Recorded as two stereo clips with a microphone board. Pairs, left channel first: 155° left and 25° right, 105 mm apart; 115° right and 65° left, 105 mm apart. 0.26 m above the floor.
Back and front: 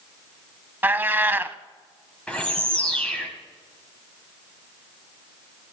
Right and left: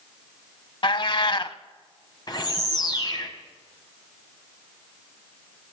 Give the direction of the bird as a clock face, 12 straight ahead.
4 o'clock.